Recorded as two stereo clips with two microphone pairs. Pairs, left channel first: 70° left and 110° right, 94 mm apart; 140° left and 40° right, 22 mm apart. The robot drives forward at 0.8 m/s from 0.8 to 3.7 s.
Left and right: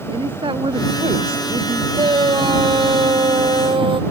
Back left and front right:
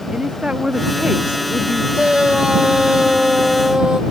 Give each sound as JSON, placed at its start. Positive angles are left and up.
{"t": 0.1, "sound": "a woman speaking", "azimuth_deg": -90}
{"t": 1.9, "sound": "a shout", "azimuth_deg": -80}